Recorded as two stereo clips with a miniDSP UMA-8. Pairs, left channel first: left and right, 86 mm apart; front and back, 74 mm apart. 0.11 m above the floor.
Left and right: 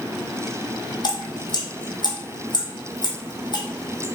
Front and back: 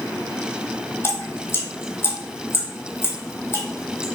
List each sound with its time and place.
1.0 s dripping: 55° left, 1.1 m